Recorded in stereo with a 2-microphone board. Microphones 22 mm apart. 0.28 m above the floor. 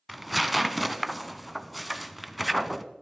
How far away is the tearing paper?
About 0.5 m.